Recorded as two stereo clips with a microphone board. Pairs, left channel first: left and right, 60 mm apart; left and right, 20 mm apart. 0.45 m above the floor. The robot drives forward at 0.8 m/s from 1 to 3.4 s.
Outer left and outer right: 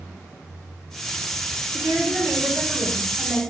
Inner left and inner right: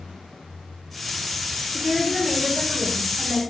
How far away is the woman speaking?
About 1.8 m.